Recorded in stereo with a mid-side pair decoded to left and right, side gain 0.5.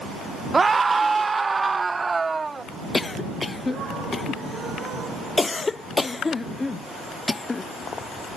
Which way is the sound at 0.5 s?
25° right.